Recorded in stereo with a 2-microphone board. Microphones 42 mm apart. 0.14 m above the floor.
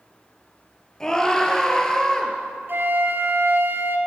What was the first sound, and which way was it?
A scream, 15° left (ahead or behind).